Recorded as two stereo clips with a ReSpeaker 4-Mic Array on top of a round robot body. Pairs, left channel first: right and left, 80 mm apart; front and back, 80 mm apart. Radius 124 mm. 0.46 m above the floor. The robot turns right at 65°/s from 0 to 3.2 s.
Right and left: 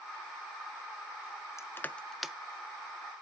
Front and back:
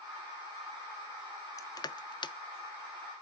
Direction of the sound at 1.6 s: 40° right.